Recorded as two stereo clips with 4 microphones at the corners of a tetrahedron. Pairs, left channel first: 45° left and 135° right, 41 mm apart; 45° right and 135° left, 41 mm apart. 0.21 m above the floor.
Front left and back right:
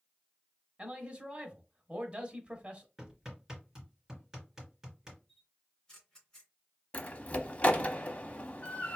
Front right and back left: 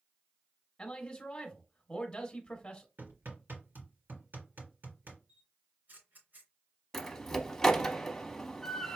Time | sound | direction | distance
0.8 | a man speaking | 100° right | 1.1 m
3.0 | hammering | 145° left | 3 m
5.3 | a camera shutter | 120° left | 2.5 m
6.9 | a door slam | 20° left | 0.8 m